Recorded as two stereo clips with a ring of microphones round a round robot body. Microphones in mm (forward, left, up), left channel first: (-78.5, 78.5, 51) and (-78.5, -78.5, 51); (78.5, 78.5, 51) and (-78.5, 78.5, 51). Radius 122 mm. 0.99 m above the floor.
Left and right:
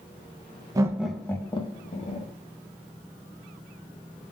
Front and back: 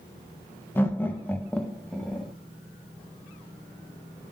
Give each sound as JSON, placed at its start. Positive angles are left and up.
{"t": 0.8, "sound": "laughter", "azimuth_deg": -60, "distance_m": 0.7}